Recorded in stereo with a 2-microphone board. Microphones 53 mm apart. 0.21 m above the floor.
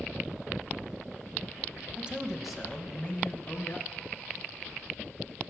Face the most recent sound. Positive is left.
turn(degrees=40)  # may be behind; listen again after turning